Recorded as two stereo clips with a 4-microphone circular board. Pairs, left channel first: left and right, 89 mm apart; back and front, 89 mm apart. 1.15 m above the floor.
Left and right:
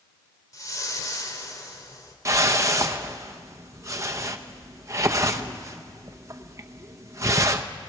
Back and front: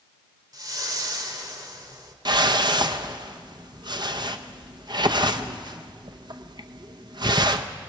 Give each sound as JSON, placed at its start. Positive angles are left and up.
{"t": 0.5, "sound": "a whoosh", "azimuth_deg": 40, "distance_m": 1.9}
{"t": 2.2, "sound": "a whoosh", "azimuth_deg": -35, "distance_m": 0.7}